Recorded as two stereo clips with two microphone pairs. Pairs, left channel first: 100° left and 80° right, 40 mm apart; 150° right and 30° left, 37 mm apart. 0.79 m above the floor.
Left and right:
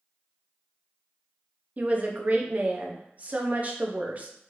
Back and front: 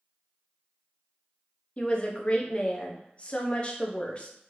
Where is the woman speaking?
110° right, 0.6 m.